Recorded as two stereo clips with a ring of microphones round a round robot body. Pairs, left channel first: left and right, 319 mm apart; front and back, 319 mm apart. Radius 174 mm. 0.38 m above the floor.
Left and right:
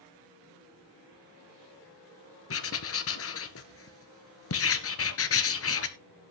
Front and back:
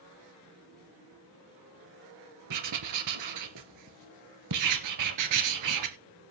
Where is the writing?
140° left, 1.8 m.